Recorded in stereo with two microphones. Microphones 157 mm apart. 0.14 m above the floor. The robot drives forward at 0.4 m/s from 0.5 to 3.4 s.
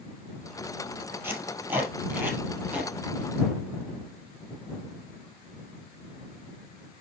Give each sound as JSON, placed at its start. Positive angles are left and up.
{"t": 1.2, "sound": "tape being pulled", "side_deg": -15, "distance_m": 2.5}